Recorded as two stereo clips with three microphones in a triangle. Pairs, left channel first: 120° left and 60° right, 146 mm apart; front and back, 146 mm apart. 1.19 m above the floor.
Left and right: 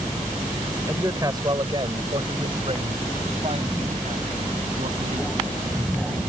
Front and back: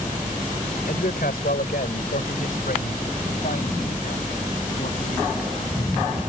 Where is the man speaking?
10° left; by 6.2 s 25° right.